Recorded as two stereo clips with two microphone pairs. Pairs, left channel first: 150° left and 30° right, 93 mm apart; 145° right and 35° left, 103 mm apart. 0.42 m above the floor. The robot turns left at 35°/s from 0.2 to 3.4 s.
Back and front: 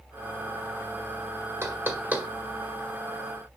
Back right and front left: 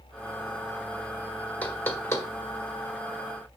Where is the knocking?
80° right, 1.3 m; by 2.3 s 100° right, 1.3 m.